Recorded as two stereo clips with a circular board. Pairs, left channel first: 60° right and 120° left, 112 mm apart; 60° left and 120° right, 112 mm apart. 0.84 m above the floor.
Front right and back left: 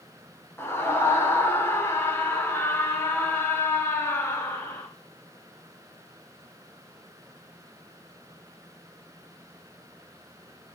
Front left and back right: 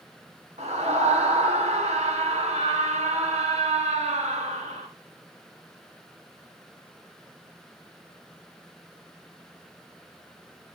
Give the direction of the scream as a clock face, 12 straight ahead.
4 o'clock.